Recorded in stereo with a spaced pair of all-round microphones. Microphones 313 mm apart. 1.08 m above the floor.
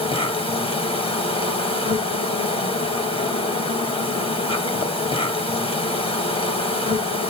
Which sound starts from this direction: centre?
An insect, at 0.0 s.